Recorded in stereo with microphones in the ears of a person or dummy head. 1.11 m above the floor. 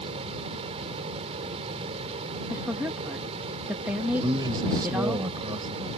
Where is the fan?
35° right (ahead or behind).